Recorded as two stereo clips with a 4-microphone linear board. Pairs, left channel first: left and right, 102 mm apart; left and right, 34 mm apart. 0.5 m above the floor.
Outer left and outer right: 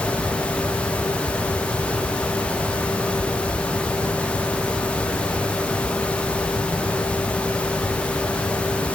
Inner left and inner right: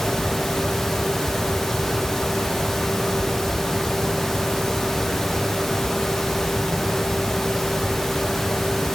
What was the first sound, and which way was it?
Only background noise.